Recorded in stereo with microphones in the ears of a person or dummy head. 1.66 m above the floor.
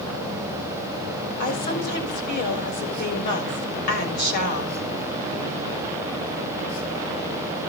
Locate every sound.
1.4 s a woman speaking: 55° left (ahead or behind), 6.5 m